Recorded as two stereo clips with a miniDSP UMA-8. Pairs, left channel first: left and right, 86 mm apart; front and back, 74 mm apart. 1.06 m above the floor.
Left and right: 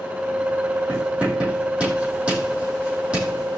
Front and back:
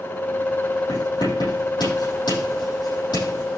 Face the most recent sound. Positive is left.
turn(degrees=-15)